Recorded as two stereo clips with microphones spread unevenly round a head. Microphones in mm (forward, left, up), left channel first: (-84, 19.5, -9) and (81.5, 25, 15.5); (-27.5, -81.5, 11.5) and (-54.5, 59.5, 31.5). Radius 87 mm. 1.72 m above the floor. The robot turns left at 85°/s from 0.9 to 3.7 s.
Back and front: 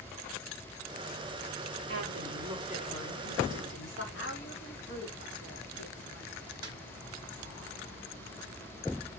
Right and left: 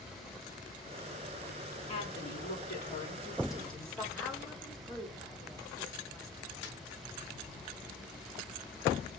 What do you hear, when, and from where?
1.9 s a woman speaking: 10° right, 5 m; by 4.0 s 165° right, 5 m
4.1 s a woman speaking: 165° right, 3.5 m
6.6 s a snare drum: 60° right, 1.6 m